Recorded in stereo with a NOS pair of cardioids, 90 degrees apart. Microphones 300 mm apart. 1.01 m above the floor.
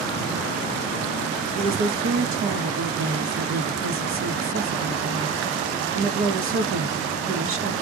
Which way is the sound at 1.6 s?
45° right.